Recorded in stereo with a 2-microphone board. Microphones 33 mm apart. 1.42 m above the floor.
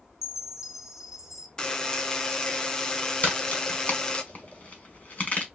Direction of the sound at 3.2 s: 40° left (ahead or behind).